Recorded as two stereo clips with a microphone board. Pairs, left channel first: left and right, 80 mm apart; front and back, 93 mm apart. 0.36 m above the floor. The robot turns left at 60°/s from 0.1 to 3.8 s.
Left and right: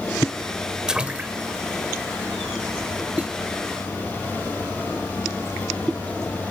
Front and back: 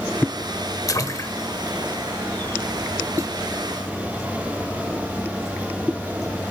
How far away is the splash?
About 0.9 m.